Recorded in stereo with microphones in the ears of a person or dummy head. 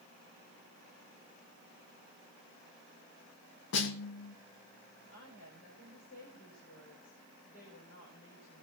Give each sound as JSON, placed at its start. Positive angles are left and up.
{"t": 3.7, "sound": "a snare drum", "side_deg": 65, "distance_m": 1.6}
{"t": 5.1, "sound": "a woman speaking", "side_deg": 50, "distance_m": 5.5}